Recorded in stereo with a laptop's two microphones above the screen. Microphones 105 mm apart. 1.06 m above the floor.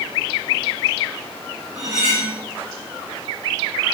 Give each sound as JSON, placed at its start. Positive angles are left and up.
{"t": 1.8, "sound": "cutlery clinking", "side_deg": -5, "distance_m": 2.5}